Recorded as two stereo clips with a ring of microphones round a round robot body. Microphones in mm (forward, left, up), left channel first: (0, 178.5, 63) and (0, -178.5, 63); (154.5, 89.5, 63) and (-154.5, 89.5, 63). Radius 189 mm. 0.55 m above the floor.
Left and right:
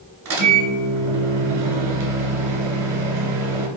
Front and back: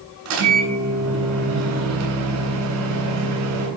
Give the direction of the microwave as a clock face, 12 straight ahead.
5 o'clock.